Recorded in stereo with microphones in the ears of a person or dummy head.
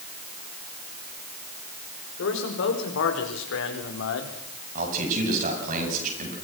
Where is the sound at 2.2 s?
75° left (ahead or behind), 5.5 m.